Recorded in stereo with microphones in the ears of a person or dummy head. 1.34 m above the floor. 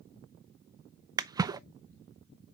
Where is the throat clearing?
I don't hear throat clearing.